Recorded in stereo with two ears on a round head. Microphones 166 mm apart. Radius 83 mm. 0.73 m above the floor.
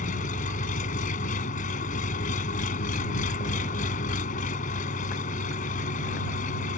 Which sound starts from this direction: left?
An engine running, at 0.0 s.